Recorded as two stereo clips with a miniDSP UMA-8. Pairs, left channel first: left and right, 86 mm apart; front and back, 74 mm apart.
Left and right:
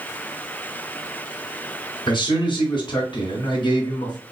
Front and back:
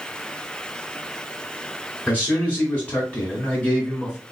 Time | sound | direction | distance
2.1 | a man speaking | 70° left | 1.8 m